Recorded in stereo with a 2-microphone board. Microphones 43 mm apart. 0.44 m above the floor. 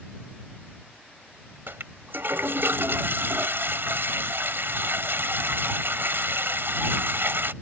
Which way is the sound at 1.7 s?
65° right (ahead or behind).